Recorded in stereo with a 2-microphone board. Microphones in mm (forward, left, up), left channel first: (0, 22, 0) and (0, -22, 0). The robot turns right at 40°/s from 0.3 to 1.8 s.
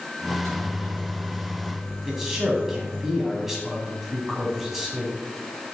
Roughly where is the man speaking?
Centre.